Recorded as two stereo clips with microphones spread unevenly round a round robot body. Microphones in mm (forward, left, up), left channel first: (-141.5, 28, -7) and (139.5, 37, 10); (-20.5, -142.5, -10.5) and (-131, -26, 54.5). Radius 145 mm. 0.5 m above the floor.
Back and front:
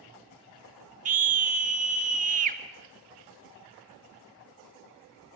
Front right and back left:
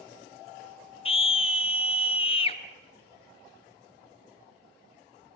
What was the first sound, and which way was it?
A scream, 60° right.